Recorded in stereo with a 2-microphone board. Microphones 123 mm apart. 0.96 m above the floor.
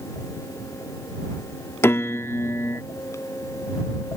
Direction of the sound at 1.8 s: 20° left (ahead or behind).